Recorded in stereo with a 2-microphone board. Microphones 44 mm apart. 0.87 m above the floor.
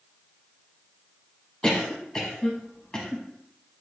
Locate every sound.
1.6 s a cough: 25° left (ahead or behind), 0.7 m